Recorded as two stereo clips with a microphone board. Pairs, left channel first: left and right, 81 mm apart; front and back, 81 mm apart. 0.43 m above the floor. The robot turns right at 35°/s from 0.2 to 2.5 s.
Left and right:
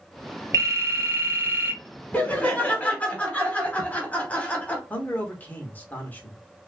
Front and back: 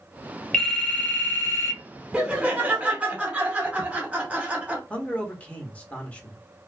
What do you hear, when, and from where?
0.5 s a phone ringing: 70° right, 0.9 m; by 1.8 s 25° right, 0.9 m
2.1 s laughter: 120° left, 0.9 m; by 4.8 s 130° left, 0.9 m
4.9 s a man speaking: 55° left, 0.8 m